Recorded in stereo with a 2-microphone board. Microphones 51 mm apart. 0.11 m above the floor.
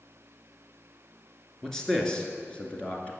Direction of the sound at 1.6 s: 10° left (ahead or behind).